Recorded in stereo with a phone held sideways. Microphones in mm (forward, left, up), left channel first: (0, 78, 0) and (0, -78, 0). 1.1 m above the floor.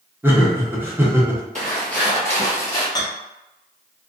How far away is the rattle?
About 0.7 m.